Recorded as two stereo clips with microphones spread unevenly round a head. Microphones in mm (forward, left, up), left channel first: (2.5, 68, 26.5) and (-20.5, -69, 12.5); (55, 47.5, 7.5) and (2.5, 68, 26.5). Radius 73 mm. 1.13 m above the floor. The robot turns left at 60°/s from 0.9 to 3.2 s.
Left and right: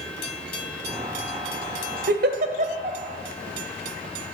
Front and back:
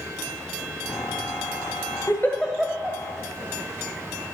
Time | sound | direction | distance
2.1 | a giggle | 100° right | 1.4 m